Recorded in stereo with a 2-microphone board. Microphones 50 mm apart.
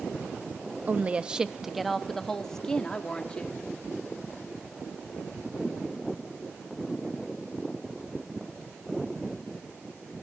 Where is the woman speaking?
35° right (ahead or behind), 0.7 m; by 3.6 s 20° left (ahead or behind), 1.7 m.